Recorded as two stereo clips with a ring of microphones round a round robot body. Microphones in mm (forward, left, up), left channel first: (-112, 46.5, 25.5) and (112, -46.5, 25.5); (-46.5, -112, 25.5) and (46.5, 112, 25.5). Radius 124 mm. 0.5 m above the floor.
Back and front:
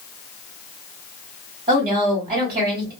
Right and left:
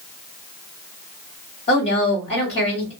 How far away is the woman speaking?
About 1.7 m.